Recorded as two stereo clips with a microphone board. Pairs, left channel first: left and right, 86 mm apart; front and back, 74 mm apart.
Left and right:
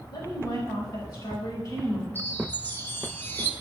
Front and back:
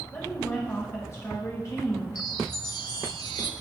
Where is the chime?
25° left, 0.9 m.